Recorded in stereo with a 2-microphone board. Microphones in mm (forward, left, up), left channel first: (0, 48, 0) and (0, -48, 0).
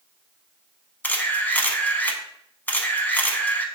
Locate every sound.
1.0 s a camera shutter: 20° left (ahead or behind), 0.6 m